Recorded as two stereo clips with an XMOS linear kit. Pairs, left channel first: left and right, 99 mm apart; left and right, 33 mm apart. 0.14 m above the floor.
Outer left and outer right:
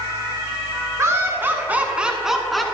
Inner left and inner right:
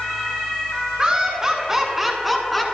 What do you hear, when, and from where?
1.0 s laughter: 30° right (ahead or behind), 1.1 m; by 2.6 s centre (ahead or behind), 1.2 m